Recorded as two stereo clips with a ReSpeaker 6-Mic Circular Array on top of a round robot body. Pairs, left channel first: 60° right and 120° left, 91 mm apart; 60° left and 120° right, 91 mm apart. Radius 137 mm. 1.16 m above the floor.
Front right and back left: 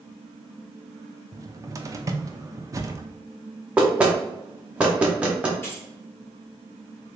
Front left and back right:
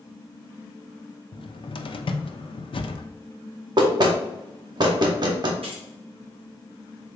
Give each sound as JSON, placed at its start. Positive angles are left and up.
{"t": 1.3, "sound": "a cupboard door", "azimuth_deg": 70, "distance_m": 0.6}
{"t": 3.8, "sound": "knocking", "azimuth_deg": -160, "distance_m": 0.6}
{"t": 5.6, "sound": "keys jangling", "azimuth_deg": -125, "distance_m": 1.9}